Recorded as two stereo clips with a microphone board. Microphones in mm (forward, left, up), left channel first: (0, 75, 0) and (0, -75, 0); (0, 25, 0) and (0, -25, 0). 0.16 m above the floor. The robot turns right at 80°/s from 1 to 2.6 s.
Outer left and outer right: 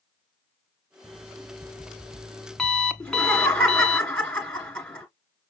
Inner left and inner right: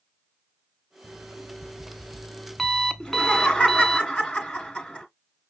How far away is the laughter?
About 1.7 m.